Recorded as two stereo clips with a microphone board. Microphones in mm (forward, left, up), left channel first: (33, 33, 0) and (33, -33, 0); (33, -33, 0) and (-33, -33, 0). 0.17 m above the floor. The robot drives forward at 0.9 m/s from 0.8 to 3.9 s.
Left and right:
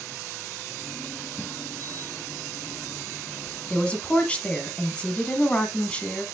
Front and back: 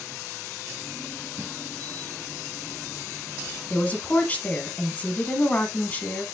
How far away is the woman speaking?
About 1.5 m.